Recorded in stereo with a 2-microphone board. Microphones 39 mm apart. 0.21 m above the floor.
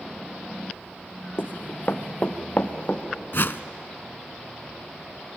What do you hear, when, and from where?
1.4 s running footsteps: 60° left (ahead or behind), 1.1 m; by 3.0 s 40° left (ahead or behind), 2 m
3.3 s a whoosh: 60° left (ahead or behind), 0.6 m